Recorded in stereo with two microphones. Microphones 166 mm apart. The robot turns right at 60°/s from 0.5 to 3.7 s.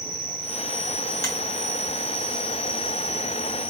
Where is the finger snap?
20° left (ahead or behind), 3 m; by 1.3 s 15° left (ahead or behind), 3 m.